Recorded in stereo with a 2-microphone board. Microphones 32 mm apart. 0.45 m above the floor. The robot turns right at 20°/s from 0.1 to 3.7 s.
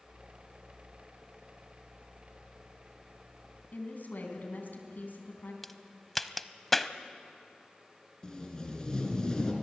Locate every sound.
3.7 s a woman speaking: 65° left (ahead or behind), 4 m
5.6 s a crack: 5° left (ahead or behind), 0.6 m
8.2 s tape being pulled: 20° left (ahead or behind), 3 m